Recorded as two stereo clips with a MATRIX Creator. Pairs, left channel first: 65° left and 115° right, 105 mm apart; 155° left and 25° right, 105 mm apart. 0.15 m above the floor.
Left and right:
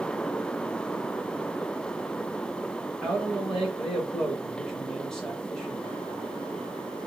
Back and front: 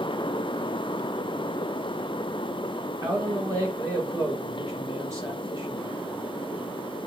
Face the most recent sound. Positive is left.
turn(degrees=-10)